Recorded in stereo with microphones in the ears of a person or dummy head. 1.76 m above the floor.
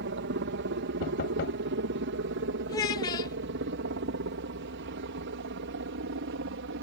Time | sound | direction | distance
0.0 | a helicopter | 65° right (ahead or behind) | ?
1.0 | knocking | 55° left (ahead or behind) | ?
2.7 | a child speaking | 20° left (ahead or behind) | ?